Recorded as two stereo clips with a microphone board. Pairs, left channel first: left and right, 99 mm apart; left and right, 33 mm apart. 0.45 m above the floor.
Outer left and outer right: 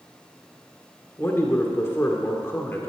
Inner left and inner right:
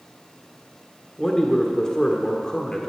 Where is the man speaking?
25° left (ahead or behind), 1.5 m.